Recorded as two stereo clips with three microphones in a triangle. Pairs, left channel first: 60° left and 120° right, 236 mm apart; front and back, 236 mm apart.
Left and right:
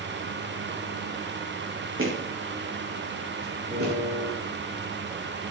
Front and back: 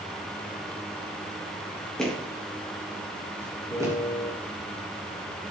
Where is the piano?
75° right, 6 m.